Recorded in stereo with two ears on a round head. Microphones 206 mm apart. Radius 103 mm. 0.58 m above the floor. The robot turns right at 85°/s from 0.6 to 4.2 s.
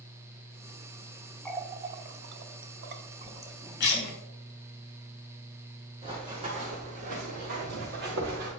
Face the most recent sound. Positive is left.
turn(degrees=-55)  # may be behind; listen again after turning